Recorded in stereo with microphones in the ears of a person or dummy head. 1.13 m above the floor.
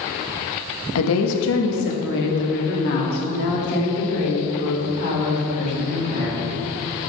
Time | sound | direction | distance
0.9 | a woman speaking | 70° left (ahead or behind) | 1.4 m